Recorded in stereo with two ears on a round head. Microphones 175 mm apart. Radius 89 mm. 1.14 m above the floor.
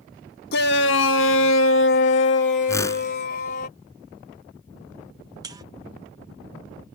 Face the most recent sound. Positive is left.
turn(degrees=-20)  # may be behind; listen again after turning